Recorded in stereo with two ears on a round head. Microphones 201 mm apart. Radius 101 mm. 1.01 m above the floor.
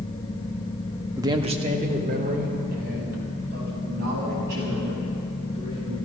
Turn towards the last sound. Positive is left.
turn(degrees=-50)  # may be behind; listen again after turning